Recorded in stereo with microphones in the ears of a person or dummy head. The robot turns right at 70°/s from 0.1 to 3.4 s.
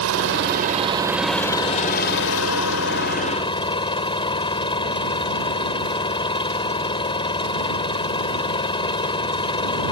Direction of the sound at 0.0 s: 80° right.